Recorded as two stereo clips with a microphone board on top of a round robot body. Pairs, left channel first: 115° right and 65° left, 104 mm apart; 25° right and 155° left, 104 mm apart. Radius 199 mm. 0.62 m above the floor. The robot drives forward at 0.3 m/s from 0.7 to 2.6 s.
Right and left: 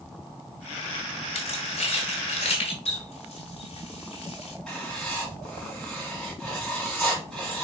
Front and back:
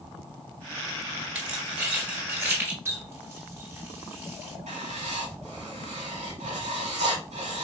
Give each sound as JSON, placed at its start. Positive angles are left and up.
{"t": 1.4, "sound": "keys jangling", "azimuth_deg": -125, "distance_m": 1.7}
{"t": 2.9, "sound": "a running tap", "azimuth_deg": -135, "distance_m": 1.7}
{"t": 4.7, "sound": "writing", "azimuth_deg": 160, "distance_m": 1.5}